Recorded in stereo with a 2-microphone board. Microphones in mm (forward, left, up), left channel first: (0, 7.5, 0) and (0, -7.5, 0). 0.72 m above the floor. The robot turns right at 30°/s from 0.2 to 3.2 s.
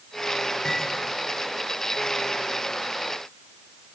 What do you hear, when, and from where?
0.7 s cutlery clinking: 50° left (ahead or behind), 7.5 m; by 0.8 s 60° left (ahead or behind), 7.5 m